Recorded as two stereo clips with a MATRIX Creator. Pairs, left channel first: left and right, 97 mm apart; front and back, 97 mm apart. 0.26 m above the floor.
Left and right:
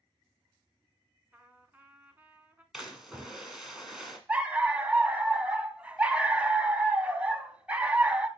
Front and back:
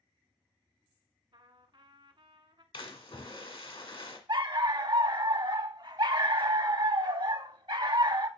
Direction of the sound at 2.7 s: 5° right.